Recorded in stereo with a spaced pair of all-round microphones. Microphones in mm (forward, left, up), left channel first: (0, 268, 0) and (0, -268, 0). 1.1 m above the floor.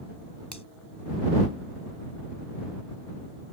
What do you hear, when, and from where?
0.5 s a finger snap: 45° left (ahead or behind)